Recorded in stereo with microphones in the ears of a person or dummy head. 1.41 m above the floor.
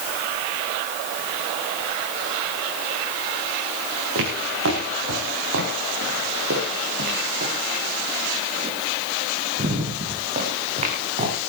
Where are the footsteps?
75° right (ahead or behind), 7.5 m; by 11.3 s 35° right (ahead or behind), 7 m.